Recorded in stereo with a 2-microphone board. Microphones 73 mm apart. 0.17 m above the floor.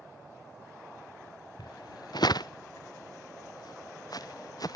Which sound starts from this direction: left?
Footsteps, at 1.6 s.